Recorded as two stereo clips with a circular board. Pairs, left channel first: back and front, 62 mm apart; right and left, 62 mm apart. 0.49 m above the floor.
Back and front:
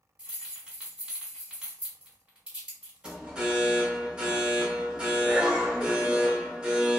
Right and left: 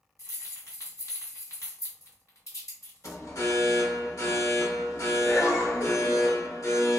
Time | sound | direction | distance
0.2 | keys jangling | 75° right | 1.5 m
3.0 | an alarm | 70° right | 0.7 m